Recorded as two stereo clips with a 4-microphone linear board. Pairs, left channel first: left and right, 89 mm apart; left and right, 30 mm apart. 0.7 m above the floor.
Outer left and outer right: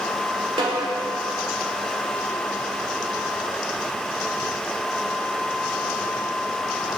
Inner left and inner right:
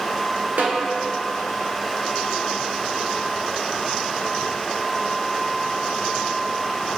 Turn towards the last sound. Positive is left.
turn(degrees=-75)  # may be behind; listen again after turning